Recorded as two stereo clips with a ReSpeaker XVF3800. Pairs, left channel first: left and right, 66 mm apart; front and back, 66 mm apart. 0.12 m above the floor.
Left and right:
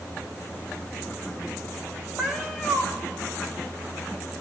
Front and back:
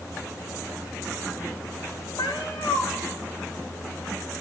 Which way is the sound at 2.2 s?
5° right.